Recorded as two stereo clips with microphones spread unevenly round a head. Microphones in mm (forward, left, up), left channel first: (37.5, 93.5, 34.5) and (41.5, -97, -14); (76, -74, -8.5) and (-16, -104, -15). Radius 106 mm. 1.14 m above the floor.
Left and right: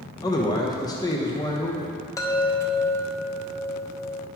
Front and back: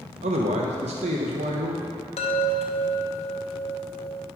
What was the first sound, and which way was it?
A man speaking, 165° left.